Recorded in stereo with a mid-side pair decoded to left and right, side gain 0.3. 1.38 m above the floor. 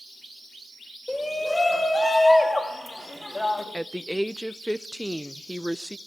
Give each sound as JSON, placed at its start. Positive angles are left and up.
{"t": 1.1, "sound": "a shout", "azimuth_deg": 25, "distance_m": 4.5}
{"t": 3.7, "sound": "a woman speaking", "azimuth_deg": 0, "distance_m": 0.7}